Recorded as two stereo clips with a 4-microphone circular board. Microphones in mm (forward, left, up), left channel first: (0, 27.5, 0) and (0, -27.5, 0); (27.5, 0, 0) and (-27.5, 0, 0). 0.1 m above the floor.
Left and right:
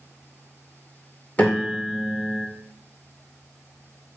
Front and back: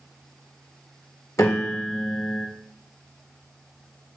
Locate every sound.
1.4 s a piano: 30° left, 2.0 m